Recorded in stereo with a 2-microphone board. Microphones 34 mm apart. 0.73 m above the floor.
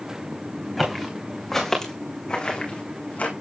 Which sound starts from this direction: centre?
Footsteps, at 0.8 s.